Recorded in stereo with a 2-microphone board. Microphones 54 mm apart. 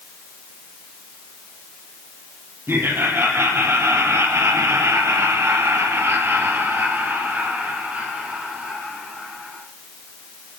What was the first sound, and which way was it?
Laughter, 50° right (ahead or behind).